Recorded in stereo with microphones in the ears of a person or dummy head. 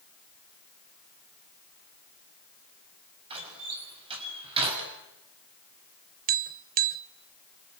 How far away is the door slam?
About 6.5 m.